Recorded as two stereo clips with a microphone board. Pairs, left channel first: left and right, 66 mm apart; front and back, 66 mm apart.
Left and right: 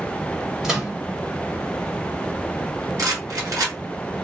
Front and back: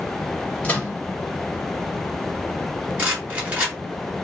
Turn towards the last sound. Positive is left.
turn(degrees=-115)